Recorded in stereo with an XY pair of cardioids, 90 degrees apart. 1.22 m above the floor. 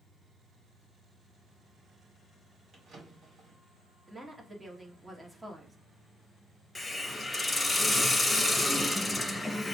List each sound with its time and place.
2.7 s a drawer: 65° right, 2 m
4.1 s a woman speaking: 20° right, 1.3 m
6.8 s a hiss: 15° left, 1.0 m